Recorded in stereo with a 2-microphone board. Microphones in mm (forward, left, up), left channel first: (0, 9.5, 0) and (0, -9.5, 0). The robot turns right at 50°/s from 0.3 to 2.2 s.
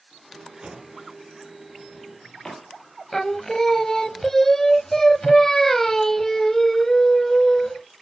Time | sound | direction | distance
0.6 | a drawer | 50° right (ahead or behind) | 3.5 m
3.1 | singing | 20° left (ahead or behind) | 0.7 m